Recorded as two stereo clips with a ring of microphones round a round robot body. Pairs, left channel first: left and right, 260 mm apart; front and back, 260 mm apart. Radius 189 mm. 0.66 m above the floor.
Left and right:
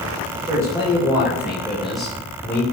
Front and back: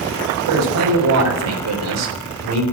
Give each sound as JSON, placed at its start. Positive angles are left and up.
{"t": 0.5, "sound": "a man speaking", "azimuth_deg": -170, "distance_m": 3.5}